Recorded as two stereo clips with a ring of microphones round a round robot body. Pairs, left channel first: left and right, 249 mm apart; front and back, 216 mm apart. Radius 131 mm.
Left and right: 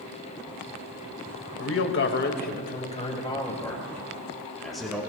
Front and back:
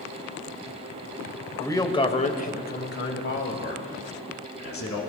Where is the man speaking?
75° left, 1.7 m; by 5.0 s straight ahead, 3.5 m.